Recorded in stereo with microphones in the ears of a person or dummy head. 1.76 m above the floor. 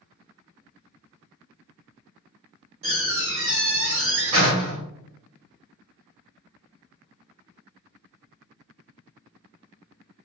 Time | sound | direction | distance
2.8 | a door slam | 35° right (ahead or behind) | 1.2 m